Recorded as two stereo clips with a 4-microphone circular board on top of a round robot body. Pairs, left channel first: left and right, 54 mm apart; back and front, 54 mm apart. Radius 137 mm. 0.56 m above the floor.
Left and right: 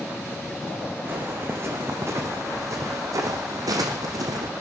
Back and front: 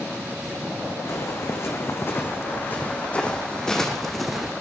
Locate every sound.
1.1 s footsteps: 140° right, 3 m; by 4.5 s 85° right, 2.5 m